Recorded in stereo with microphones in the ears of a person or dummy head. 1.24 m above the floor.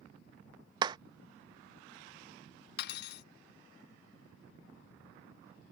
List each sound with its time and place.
0.8 s a clap: 30° right (ahead or behind)
2.8 s cutlery clinking: 60° left (ahead or behind)